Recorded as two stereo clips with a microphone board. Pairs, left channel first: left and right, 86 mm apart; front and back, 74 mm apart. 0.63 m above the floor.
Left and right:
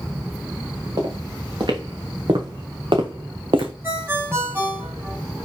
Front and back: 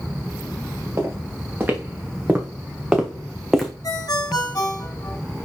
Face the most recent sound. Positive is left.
turn(degrees=-30)